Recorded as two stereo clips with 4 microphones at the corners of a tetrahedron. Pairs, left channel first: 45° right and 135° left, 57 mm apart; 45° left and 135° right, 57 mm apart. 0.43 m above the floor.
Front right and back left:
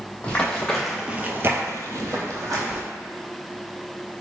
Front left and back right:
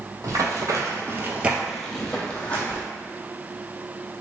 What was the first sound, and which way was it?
Running footsteps, 115° right.